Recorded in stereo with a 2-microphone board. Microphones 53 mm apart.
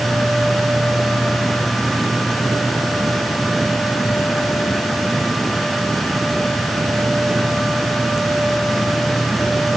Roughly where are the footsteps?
I don't hear footsteps.